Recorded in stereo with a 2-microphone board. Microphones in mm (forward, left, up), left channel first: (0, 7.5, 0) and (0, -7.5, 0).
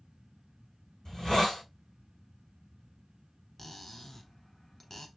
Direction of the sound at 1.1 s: 50° left (ahead or behind).